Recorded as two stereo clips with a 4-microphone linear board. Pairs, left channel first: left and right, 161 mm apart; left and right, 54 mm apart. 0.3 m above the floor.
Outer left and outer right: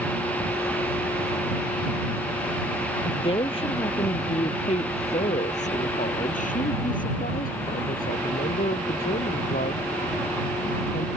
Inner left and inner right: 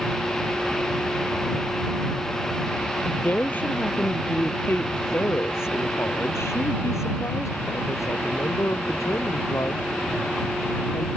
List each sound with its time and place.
3.0 s a woman speaking: 35° left (ahead or behind); by 11.1 s 80° left